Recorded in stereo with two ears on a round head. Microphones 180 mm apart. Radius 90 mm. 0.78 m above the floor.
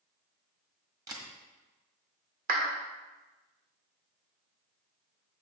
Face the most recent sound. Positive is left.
turn(degrees=-45)  # may be behind; listen again after turning